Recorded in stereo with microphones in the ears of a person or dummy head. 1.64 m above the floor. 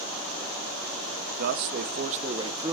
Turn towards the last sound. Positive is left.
turn(degrees=-15)  # may be behind; listen again after turning